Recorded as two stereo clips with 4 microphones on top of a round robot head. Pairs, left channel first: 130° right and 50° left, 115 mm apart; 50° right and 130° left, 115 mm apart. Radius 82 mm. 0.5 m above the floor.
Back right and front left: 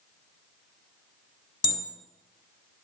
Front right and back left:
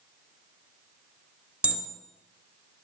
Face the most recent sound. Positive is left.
turn(degrees=-155)